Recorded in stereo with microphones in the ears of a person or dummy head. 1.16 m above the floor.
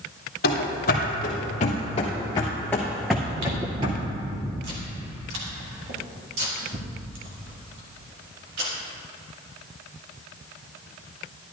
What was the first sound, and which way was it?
Running footsteps, 50° left (ahead or behind).